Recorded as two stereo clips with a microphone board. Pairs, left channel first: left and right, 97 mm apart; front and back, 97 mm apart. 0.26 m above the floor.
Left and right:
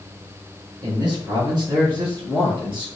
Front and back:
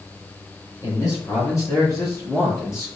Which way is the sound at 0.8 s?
45° right.